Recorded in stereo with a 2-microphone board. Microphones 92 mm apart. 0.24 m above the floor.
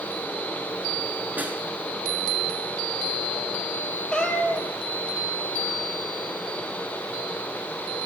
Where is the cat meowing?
10° left (ahead or behind), 2.0 m.